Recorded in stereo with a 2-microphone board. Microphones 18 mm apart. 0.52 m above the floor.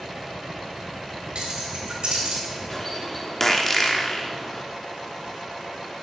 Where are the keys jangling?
60° right (ahead or behind), 2 m; by 2.4 s 65° right (ahead or behind), 3.5 m.